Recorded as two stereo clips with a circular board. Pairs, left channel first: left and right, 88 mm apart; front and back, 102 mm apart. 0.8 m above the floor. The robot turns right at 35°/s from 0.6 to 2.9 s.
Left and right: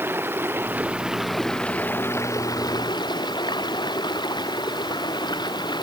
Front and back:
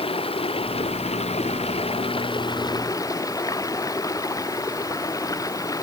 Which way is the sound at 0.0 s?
25° right.